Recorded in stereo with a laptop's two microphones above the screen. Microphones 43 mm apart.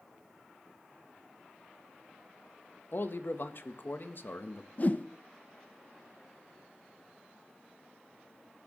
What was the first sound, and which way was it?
A man speaking, 55° left (ahead or behind).